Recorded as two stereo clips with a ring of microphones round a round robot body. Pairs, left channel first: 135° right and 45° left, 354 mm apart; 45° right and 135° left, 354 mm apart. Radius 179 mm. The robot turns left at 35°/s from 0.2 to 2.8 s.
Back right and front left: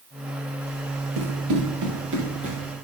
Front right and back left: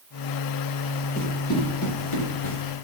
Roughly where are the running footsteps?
Ahead.